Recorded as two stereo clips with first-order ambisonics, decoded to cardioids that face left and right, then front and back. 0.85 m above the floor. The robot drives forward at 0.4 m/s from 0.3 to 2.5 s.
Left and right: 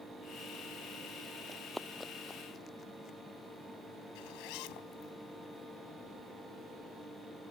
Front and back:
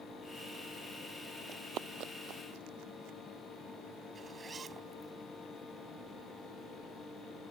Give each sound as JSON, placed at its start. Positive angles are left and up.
{"t": 1.5, "sound": "running footsteps", "azimuth_deg": -145}
{"t": 4.2, "sound": "a zipper", "azimuth_deg": 110}